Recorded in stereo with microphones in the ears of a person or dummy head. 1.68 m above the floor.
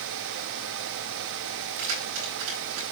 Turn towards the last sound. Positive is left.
turn(degrees=-80)